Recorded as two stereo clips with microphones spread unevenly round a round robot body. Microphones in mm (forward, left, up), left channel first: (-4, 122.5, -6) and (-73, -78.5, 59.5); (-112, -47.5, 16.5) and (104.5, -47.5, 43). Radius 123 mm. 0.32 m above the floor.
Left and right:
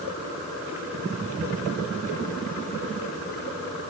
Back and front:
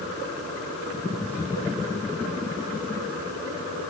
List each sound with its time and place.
Only background noise.